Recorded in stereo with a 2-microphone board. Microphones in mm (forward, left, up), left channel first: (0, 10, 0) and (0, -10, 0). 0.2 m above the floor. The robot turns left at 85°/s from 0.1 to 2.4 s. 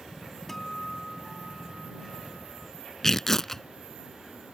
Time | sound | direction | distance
0.5 | a guitar | 15° left (ahead or behind) | ?
3.0 | tearing paper | 25° left (ahead or behind) | ?